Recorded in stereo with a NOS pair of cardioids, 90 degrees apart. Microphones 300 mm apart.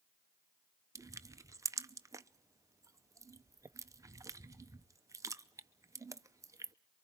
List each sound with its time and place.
0.9 s crushing: 10° right, 0.7 m